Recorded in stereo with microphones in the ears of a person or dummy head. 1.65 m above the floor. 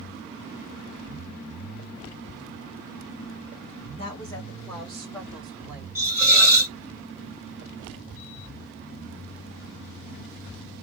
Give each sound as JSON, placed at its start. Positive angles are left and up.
{"t": 4.0, "sound": "a woman speaking", "side_deg": 30, "distance_m": 1.5}
{"t": 6.0, "sound": "a hiss", "side_deg": -15, "distance_m": 1.9}